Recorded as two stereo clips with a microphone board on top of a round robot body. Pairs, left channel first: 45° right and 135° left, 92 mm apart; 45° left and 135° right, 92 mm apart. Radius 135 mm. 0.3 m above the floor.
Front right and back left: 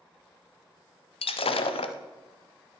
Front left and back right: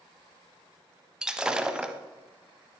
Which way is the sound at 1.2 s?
55° right.